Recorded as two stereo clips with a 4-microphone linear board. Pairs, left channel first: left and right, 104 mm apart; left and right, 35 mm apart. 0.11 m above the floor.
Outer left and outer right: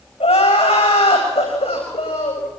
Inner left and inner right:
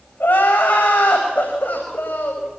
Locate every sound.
0.2 s crying: 70° left (ahead or behind), 9.5 m